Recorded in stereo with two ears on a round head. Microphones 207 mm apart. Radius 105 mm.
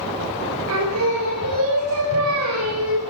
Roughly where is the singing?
Right.